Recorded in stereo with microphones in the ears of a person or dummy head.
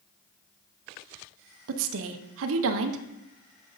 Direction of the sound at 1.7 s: 80° right.